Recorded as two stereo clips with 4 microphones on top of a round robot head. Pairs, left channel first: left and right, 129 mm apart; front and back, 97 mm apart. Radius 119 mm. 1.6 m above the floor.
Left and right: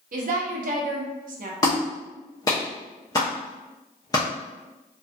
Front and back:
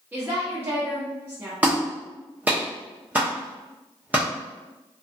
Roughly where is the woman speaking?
Right.